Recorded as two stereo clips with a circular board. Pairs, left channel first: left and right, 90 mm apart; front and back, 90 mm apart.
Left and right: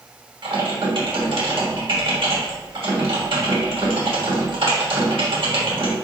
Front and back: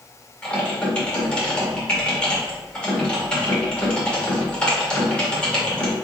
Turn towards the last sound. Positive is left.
turn(degrees=-80)